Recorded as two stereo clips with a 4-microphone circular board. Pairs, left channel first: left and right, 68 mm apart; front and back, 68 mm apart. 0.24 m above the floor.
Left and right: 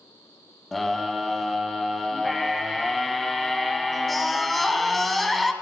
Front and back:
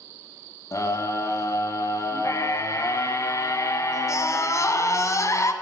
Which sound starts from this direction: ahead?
A scream, at 0.7 s.